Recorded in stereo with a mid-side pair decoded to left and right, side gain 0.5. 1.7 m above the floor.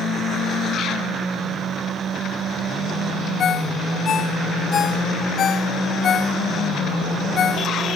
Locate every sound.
3.4 s a ringtone: 50° left